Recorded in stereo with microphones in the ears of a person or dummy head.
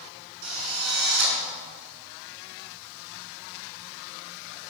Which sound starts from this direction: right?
A drill, at 0.4 s.